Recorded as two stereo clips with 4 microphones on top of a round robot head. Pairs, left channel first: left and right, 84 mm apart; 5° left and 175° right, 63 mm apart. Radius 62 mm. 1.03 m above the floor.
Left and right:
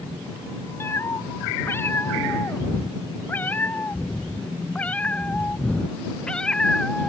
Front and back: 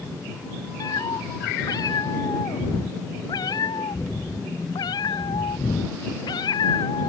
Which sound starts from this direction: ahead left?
A cat meowing, at 0.8 s.